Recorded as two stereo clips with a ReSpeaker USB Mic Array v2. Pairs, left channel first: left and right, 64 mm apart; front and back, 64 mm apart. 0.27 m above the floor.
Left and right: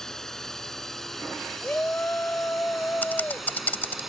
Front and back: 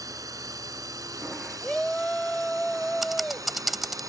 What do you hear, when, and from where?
0.0 s a drone: 170° left; by 4.1 s 175° right
1.6 s a shout: 70° left
3.0 s typing on a keyboard: 95° left